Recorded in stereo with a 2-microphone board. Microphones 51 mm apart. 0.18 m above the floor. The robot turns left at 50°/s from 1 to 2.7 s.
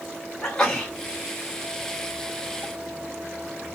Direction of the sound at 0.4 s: 15° left (ahead or behind).